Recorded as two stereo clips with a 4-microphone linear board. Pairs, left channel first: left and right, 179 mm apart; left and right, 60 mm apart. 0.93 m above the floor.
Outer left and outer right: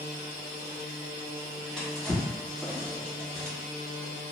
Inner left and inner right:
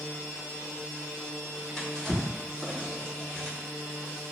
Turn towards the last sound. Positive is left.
turn(degrees=10)  # may be behind; listen again after turning